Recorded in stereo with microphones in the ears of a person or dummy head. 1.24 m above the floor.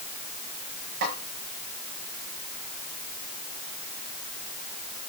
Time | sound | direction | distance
1.0 | a snare drum | 50° right (ahead or behind) | 6 m